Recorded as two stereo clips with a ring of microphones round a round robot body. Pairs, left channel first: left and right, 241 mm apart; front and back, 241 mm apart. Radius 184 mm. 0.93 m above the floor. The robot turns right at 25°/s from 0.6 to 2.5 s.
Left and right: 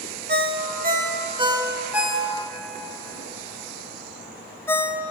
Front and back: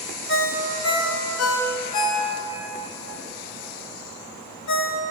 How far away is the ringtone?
About 1.1 m.